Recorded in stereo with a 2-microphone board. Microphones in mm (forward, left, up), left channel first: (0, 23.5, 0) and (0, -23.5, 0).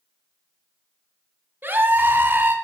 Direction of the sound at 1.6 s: 45° right (ahead or behind).